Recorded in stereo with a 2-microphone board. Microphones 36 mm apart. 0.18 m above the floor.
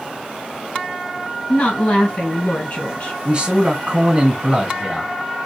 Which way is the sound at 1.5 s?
40° left (ahead or behind).